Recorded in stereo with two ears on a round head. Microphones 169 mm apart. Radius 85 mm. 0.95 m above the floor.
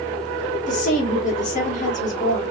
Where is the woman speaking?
40° left (ahead or behind), 1.1 m.